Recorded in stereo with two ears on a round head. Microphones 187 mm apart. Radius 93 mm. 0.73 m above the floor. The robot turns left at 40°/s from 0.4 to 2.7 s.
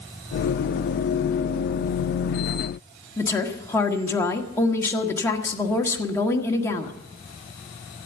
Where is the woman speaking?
15° left (ahead or behind), 1.7 m.